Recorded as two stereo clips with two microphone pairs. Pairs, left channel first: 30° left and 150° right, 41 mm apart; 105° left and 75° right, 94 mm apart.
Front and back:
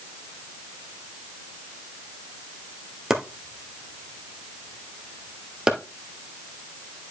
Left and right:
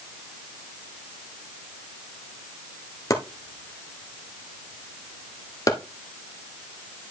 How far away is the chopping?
About 1.4 m.